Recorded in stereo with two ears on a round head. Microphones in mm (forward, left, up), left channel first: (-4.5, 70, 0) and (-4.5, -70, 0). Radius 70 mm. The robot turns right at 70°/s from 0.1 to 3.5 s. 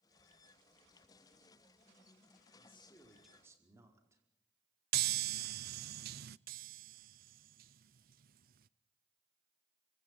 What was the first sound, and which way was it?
A man speaking, 130° left.